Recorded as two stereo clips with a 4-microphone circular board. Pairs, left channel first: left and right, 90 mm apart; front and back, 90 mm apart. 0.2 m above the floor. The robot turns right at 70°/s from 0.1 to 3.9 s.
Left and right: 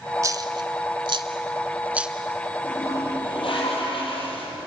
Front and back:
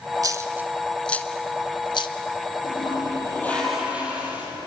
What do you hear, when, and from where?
0.2 s a dropped coin: 140° right, 1.2 m; by 2.1 s 5° right, 1.2 m
2.6 s a toilet flushing: 15° left, 6.5 m; by 4.5 s 105° left, 6.5 m